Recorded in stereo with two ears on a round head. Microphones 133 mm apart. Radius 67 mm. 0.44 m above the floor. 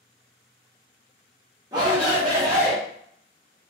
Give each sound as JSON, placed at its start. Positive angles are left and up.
{"t": 1.7, "sound": "a shout", "side_deg": -25, "distance_m": 0.8}